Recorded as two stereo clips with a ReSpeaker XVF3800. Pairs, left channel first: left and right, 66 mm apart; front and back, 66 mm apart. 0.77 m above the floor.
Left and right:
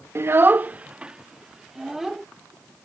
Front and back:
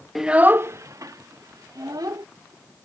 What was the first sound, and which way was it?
A child speaking, 90° right.